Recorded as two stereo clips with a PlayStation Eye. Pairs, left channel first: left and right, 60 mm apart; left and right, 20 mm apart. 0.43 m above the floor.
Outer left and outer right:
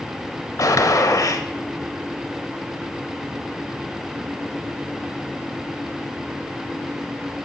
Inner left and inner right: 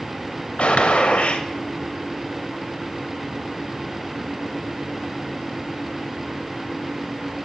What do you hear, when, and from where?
0.6 s a gunshot: 70° left (ahead or behind), 0.6 m